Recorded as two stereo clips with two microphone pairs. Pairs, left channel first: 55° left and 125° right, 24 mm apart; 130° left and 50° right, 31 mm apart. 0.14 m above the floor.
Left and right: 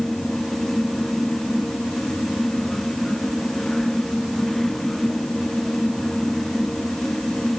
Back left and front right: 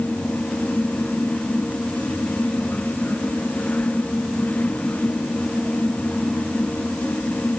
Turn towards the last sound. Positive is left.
No sound to turn to.